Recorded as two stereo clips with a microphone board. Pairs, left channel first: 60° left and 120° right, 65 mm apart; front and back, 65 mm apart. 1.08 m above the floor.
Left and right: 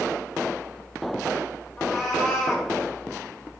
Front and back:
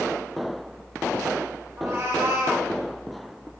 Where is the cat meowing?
145° left, 1.0 m.